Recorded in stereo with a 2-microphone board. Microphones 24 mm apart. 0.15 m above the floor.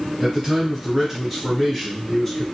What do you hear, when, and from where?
0.2 s a man speaking: 10° right (ahead or behind), 1.4 m; by 2.4 s 20° left (ahead or behind), 1.4 m